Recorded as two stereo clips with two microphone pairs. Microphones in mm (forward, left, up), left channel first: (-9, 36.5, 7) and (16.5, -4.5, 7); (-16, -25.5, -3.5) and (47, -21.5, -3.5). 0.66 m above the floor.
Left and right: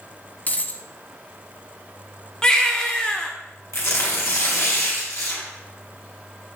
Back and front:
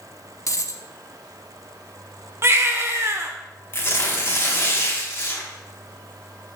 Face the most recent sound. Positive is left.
turn(degrees=130)